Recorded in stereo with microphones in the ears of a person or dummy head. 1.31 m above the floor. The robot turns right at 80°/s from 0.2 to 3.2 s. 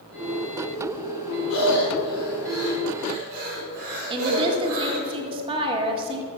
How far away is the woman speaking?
About 1.8 m.